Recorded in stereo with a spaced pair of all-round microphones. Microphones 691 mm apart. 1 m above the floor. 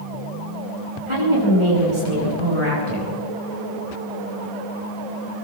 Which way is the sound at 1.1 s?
45° right (ahead or behind).